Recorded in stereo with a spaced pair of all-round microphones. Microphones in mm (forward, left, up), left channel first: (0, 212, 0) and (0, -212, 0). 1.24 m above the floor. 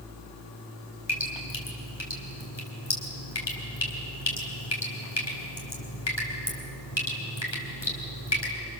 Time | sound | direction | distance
1.1 | dripping | 80° left | 4.5 m